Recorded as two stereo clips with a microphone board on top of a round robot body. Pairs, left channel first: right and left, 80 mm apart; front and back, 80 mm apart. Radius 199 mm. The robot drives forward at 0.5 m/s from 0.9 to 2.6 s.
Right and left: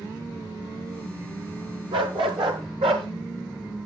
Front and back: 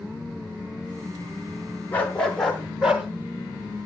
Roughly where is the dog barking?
Ahead left.